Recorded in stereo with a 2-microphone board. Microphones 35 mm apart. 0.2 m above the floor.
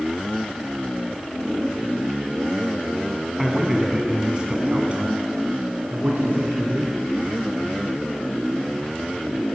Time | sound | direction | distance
3.4 | a man speaking | 5° right (ahead or behind) | 1.5 m